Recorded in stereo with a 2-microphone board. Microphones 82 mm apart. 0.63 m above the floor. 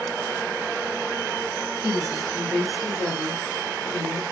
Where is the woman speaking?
25° right (ahead or behind), 1.4 m; by 4.2 s 45° left (ahead or behind), 1.6 m.